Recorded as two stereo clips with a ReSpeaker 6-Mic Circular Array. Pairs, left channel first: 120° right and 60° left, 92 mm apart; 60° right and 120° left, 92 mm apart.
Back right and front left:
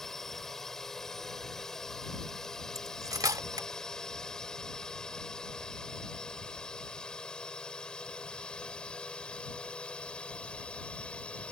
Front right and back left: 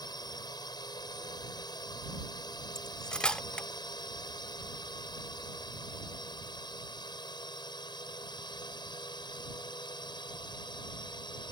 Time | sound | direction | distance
0.0 | a drone | 35° right | ?
2.8 | cutlery clinking | 20° left | ?